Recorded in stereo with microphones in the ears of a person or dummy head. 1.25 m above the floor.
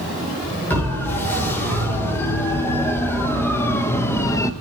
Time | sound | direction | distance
0.7 | a siren | 10° left (ahead or behind) | 5 m